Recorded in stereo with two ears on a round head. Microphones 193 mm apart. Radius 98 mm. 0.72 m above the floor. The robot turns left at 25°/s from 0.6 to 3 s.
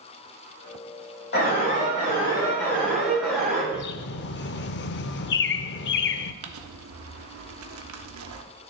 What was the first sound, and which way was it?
An alarm, 45° left.